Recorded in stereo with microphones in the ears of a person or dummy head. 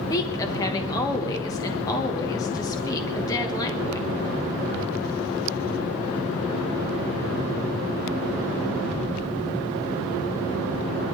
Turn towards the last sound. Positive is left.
turn(degrees=20)  # may be behind; listen again after turning